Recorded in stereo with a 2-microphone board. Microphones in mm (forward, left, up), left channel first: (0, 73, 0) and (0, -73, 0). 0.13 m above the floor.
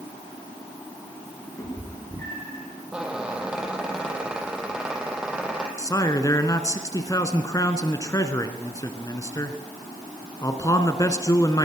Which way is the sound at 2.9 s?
5° right (ahead or behind).